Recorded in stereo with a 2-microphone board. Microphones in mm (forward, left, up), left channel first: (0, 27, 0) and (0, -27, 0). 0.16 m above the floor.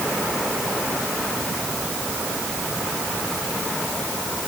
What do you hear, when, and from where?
Only background noise.